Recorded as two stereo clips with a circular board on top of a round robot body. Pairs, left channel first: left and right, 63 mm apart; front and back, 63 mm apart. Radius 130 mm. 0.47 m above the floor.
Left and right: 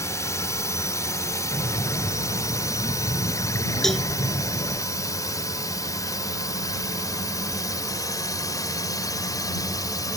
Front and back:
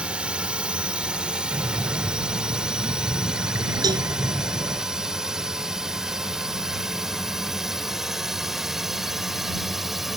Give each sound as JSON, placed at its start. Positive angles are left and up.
{"t": 0.0, "sound": "a drone", "azimuth_deg": 110}
{"t": 1.5, "sound": "breathing", "azimuth_deg": 130}
{"t": 3.8, "sound": "a cowbell", "azimuth_deg": 175}